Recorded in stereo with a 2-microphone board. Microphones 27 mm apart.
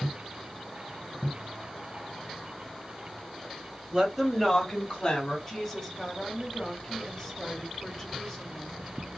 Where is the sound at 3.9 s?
30° right (ahead or behind), 1.1 m; by 5.4 s 30° left (ahead or behind), 1.6 m.